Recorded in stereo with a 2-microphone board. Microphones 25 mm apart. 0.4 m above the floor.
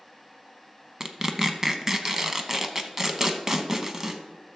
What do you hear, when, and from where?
1.0 s tearing paper: 20° right (ahead or behind), 0.7 m